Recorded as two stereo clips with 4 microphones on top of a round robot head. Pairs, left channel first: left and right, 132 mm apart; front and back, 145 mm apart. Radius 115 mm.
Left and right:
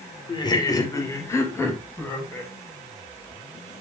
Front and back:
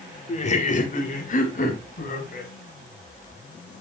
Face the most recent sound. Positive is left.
turn(degrees=10)